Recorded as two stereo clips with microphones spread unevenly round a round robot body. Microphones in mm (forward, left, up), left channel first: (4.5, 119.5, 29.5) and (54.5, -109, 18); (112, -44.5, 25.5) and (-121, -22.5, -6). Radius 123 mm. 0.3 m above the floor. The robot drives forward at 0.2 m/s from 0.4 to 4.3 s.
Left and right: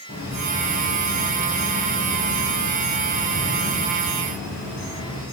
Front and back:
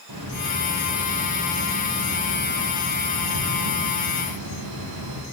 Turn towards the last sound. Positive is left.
turn(degrees=160)